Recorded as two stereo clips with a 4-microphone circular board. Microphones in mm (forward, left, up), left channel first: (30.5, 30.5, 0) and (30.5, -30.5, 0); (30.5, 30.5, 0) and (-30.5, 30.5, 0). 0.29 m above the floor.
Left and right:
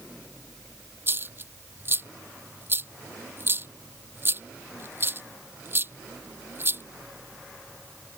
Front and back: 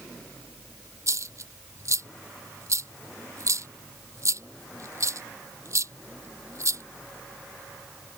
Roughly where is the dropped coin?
Behind right.